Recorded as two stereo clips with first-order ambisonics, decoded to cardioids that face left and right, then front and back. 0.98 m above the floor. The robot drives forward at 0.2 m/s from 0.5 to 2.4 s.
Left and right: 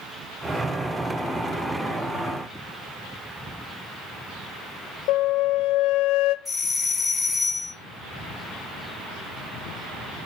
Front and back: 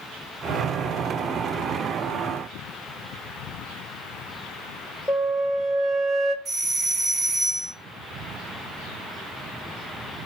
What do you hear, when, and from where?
5.1 s a flute: 95° left, 0.6 m
6.5 s a doorbell: straight behind, 1.1 m